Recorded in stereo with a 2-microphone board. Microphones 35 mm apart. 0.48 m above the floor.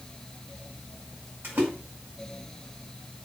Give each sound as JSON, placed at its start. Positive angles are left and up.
{"t": 1.4, "sound": "a splash", "side_deg": -75, "distance_m": 5.0}